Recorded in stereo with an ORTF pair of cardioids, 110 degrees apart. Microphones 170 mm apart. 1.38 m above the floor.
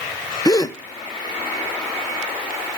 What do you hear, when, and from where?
0.5 s a gasp: 25° left, 1.0 m